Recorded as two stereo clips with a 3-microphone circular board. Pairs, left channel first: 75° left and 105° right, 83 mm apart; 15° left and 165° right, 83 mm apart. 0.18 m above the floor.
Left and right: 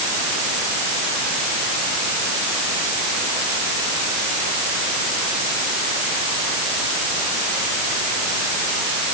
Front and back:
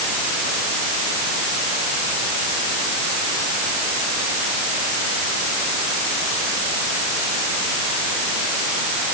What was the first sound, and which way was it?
Only background noise.